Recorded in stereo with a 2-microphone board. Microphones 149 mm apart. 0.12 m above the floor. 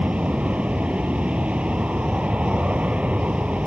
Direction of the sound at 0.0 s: 10° right (ahead or behind).